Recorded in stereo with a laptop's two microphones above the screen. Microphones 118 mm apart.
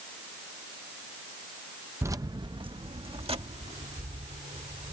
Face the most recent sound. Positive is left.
turn(degrees=-65)  # may be behind; listen again after turning